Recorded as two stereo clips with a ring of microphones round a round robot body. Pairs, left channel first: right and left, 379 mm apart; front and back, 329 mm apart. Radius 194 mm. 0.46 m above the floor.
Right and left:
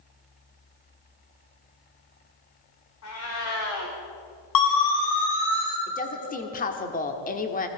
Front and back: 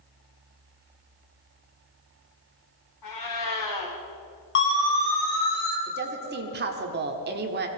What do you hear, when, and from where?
3.0 s a cat meowing: 40° right, 4 m
4.5 s a siren: 60° right, 4.5 m; by 5.8 s 45° right, 4 m
5.9 s a woman speaking: 145° right, 1.4 m